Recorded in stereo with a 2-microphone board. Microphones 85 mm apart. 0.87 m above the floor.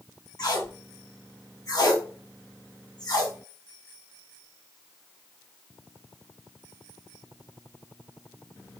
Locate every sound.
0.4 s tape being pulled: 50° left (ahead or behind), 1.2 m